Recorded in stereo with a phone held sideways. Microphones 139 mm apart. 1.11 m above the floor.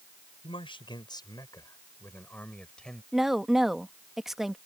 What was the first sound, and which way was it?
A man speaking, 40° left (ahead or behind).